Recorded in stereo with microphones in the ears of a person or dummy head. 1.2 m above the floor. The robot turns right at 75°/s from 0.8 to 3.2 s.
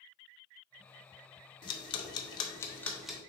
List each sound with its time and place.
1.6 s ticking: 25° left (ahead or behind), 0.6 m; by 3.2 s 5° right (ahead or behind), 0.6 m